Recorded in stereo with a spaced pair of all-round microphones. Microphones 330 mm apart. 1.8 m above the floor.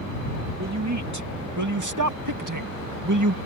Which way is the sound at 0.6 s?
50° right (ahead or behind).